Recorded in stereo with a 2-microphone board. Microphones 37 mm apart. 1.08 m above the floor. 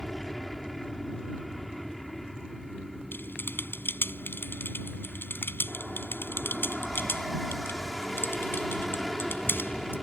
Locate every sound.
0.0 s an aircraft: centre (ahead or behind)
3.1 s typing on a keyboard: 80° left